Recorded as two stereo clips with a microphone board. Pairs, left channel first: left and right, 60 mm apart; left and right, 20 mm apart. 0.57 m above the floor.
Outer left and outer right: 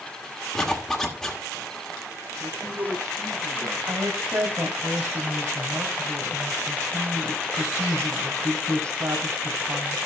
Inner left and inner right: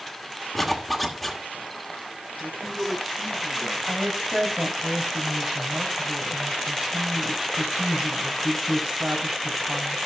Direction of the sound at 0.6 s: 5° left (ahead or behind).